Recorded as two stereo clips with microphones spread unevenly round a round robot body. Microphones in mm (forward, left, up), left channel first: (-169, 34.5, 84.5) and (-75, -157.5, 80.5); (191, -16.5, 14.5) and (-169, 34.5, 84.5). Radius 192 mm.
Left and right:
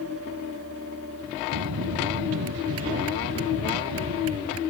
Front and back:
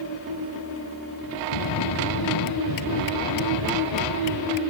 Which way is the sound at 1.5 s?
50° right.